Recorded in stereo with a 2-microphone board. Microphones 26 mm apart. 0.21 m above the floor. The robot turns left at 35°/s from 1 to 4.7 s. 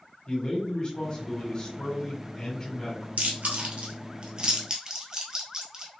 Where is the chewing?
75° right (ahead or behind), 1.2 m; by 5.9 s 20° right (ahead or behind), 1.2 m.